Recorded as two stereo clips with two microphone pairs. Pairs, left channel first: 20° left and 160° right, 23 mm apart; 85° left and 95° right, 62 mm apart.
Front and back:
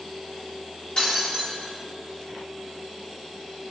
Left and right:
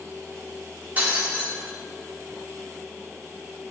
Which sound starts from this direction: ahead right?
Breaking glass, at 1.0 s.